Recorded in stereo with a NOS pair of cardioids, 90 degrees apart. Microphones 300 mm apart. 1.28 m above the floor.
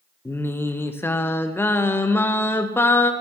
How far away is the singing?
About 0.7 m.